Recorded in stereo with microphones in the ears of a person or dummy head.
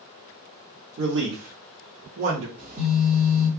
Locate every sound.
1.0 s a man speaking: 55° right (ahead or behind), 0.7 m; by 2.5 s 25° right (ahead or behind), 0.8 m
2.6 s a phone buzzing: 30° right (ahead or behind), 1.2 m